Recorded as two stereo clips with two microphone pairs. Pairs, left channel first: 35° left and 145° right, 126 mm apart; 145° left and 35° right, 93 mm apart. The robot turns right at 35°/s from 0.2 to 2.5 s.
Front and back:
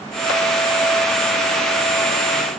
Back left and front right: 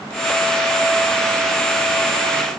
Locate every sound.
Only background noise.